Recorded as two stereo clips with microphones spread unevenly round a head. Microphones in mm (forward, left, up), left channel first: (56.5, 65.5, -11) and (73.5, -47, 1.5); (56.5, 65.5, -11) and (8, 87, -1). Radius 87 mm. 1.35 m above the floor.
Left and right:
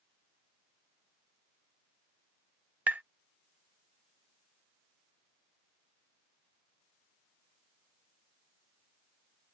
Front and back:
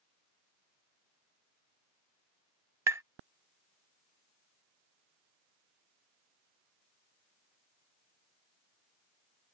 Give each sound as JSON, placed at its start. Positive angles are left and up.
{"t": 2.9, "sound": "tapping", "azimuth_deg": -165}